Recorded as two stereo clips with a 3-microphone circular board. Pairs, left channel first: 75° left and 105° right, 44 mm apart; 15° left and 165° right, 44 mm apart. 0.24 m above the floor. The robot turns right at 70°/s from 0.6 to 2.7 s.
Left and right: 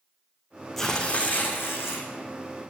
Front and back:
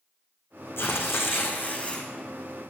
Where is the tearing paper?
5° right, 2.5 m; by 2.1 s 85° left, 2.5 m.